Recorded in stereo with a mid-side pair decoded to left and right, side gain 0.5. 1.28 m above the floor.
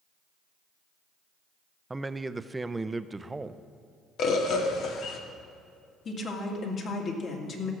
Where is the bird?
65° left, 1.5 m.